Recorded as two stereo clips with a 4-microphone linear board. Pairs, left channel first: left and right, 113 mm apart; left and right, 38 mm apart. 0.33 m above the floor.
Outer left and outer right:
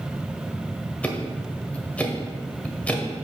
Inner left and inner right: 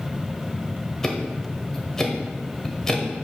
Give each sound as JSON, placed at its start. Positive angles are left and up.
{"t": 1.0, "sound": "ticking", "side_deg": 10, "distance_m": 1.2}